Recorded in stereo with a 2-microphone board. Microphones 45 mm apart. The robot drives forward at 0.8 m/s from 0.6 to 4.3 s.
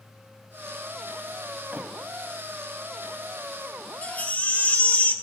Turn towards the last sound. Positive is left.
turn(degrees=40)  # may be behind; listen again after turning